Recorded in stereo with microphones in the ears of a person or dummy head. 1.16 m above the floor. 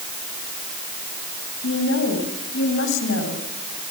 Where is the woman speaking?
75° left (ahead or behind), 8.5 m.